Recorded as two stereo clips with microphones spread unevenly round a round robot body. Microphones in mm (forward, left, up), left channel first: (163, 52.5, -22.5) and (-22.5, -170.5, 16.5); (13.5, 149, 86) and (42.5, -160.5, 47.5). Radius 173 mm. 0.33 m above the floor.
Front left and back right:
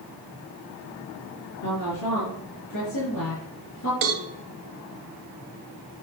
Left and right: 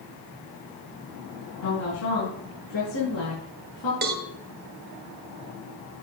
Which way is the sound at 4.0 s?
135° right.